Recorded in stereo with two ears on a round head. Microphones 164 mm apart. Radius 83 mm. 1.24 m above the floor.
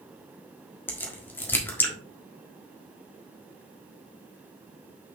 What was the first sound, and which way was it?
A crack, 10° left (ahead or behind).